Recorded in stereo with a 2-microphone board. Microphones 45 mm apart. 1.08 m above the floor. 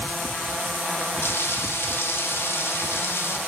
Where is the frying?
65° left (ahead or behind), 0.9 m.